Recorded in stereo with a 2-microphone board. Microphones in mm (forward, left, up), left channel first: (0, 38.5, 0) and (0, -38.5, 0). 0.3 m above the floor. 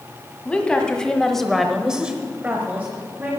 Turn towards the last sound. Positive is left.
turn(degrees=-25)  # may be behind; listen again after turning